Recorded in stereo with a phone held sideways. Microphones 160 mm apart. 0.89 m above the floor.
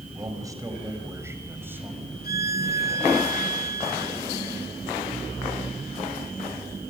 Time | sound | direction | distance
0.1 | a man speaking | 20° right (ahead or behind) | 4.5 m
2.2 | a violin | 65° left (ahead or behind) | 2.0 m